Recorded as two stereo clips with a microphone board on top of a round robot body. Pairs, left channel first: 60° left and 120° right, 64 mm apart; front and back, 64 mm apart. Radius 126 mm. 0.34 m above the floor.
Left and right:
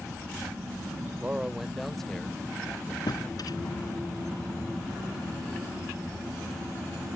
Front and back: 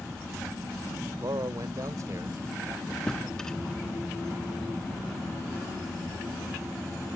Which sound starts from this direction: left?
A drawer, at 3.1 s.